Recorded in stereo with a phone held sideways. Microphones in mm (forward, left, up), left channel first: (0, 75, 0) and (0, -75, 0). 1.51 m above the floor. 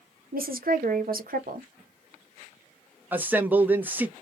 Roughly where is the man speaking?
Centre.